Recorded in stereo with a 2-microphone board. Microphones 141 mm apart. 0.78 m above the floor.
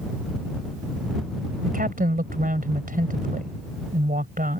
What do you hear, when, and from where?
1.6 s a woman speaking: 75° right (ahead or behind)